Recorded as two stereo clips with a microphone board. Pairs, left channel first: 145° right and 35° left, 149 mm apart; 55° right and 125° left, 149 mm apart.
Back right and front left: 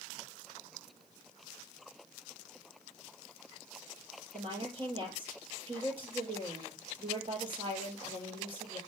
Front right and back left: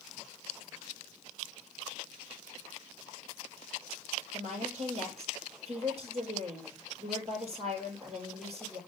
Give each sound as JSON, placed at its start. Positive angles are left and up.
{"t": 4.3, "sound": "a woman speaking", "azimuth_deg": 85, "distance_m": 6.0}